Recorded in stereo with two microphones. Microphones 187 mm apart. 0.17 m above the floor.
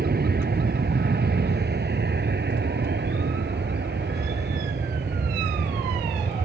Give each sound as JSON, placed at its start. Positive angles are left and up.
{"t": 0.0, "sound": "an aircraft", "side_deg": -60}